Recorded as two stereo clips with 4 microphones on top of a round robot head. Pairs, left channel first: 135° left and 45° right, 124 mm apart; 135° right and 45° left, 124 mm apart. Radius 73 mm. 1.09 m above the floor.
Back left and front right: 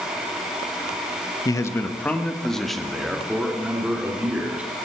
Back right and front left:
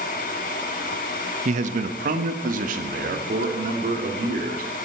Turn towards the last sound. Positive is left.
turn(degrees=35)